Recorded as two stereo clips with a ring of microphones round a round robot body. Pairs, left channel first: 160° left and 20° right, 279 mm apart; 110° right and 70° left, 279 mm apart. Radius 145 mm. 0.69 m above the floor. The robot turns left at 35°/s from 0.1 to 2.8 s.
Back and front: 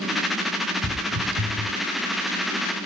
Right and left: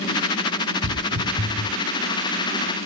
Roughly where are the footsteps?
Ahead.